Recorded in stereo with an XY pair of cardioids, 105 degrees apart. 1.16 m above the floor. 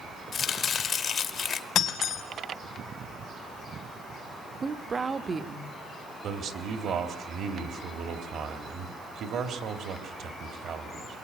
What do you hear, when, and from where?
0.3 s chopping: 55° left, 1.9 m
1.8 s breaking glass: 65° left, 3 m
4.6 s a woman speaking: 25° right, 1.4 m
6.2 s a man speaking: 60° right, 3 m